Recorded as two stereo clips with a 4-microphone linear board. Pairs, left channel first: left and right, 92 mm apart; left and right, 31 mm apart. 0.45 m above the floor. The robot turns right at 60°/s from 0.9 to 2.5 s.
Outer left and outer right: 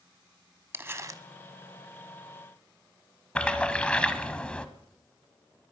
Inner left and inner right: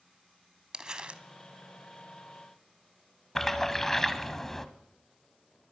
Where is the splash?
15° left (ahead or behind), 1.0 m.